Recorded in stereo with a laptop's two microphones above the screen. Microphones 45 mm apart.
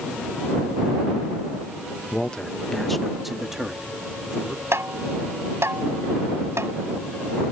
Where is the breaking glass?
I don't hear breaking glass.